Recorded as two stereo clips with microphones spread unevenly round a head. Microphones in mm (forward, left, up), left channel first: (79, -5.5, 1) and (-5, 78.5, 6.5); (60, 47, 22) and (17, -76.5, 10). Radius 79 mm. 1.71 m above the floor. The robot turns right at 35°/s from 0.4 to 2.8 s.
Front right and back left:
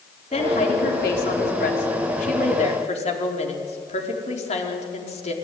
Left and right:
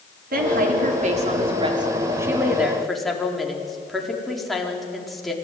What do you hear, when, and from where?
0.3 s a woman speaking: 100° right, 4.5 m; by 5.3 s 20° right, 4.5 m